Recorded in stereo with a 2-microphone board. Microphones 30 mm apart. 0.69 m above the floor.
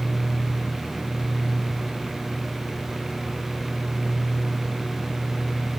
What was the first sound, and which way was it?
Only background noise.